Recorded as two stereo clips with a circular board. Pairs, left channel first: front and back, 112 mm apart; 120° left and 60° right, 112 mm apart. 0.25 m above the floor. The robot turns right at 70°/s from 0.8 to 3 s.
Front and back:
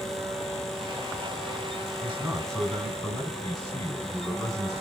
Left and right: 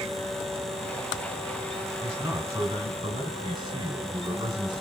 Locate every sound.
2.0 s a man speaking: 130° right, 1.7 m; by 4.8 s 60° right, 1.7 m